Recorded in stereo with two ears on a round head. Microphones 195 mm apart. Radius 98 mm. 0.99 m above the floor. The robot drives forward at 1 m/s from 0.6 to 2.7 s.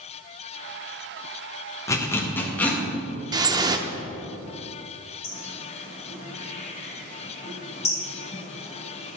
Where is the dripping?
20° right (ahead or behind), 0.5 m.